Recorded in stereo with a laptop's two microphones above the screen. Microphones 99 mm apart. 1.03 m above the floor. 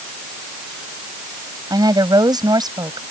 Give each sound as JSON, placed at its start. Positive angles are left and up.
{"t": 1.7, "sound": "a woman speaking", "side_deg": -45}